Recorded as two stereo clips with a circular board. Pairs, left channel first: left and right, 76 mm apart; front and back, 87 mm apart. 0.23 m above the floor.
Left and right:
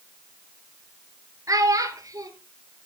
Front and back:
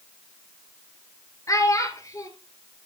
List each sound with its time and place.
1.5 s a child speaking: 50° right, 2.5 m